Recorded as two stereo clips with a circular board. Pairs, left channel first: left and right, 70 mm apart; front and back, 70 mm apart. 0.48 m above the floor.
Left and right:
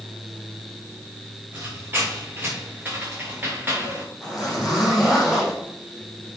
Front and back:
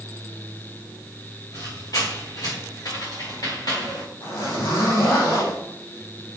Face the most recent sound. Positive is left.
turn(degrees=-10)